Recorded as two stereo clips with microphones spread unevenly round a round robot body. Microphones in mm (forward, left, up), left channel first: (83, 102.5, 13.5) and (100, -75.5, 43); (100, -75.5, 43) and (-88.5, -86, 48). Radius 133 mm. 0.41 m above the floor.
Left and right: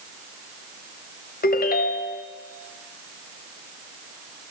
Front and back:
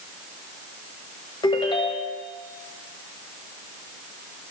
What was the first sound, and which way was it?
A ringtone, 75° left.